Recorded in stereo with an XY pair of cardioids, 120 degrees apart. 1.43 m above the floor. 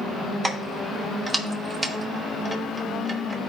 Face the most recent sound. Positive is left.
turn(degrees=-30)